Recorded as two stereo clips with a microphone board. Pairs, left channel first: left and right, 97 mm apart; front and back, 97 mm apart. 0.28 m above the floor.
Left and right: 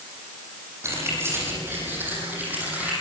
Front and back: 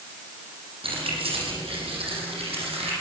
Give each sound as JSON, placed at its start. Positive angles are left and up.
{"t": 0.8, "sound": "keys jangling", "azimuth_deg": -155, "distance_m": 7.5}